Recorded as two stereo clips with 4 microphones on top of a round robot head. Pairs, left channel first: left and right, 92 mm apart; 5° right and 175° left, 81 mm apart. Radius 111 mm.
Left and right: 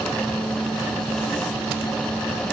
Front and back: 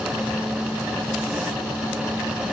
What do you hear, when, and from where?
Only background noise.